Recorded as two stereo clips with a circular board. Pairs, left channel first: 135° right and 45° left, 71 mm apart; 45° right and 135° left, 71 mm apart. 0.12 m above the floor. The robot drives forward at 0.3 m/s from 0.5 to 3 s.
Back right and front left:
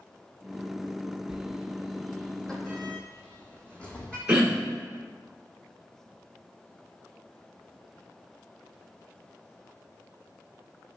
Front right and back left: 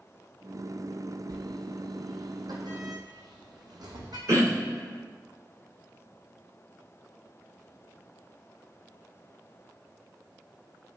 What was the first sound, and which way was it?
A sliding door, 125° left.